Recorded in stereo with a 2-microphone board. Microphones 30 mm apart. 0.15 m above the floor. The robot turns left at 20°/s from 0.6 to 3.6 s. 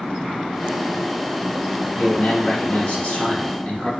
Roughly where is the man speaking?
Left.